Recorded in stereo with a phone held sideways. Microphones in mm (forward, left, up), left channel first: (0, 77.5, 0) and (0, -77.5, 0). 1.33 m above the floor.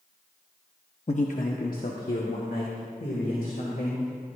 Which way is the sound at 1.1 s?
50° left (ahead or behind).